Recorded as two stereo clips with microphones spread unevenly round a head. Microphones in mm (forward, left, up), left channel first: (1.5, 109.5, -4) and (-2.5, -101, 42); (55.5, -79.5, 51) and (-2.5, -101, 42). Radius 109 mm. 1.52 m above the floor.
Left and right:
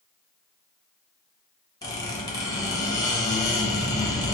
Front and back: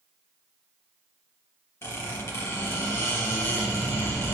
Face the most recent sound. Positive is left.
turn(degrees=10)